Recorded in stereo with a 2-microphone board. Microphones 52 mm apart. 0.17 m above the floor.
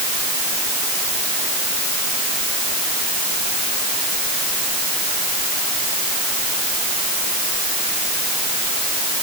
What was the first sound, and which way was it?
Only background noise.